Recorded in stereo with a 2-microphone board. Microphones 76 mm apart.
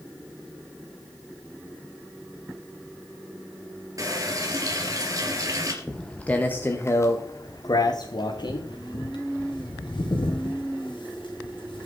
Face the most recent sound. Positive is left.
turn(degrees=80)